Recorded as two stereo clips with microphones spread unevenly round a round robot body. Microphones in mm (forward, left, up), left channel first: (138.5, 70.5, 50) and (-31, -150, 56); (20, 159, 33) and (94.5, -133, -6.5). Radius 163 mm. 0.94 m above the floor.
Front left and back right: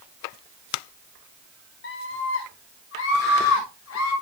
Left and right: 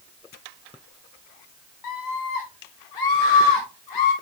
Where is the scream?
100° left, 1.6 m; by 4.1 s 95° left, 4 m.